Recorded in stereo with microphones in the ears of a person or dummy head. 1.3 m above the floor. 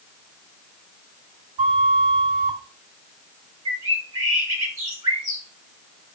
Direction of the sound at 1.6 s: 40° right (ahead or behind).